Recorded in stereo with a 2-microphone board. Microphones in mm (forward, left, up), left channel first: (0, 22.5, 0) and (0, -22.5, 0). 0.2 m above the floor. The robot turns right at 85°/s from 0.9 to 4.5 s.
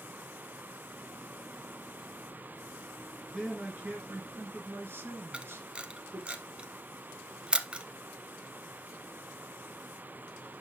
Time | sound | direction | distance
3.3 | a man speaking | 175° left | 2.5 m
5.3 | a camera shutter | 25° right (ahead or behind) | 0.7 m